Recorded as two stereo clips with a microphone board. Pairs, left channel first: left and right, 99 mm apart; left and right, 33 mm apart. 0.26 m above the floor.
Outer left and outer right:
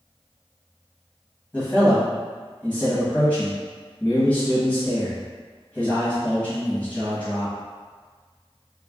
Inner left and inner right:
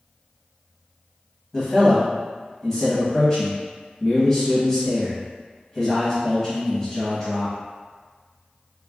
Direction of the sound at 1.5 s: 15° left (ahead or behind).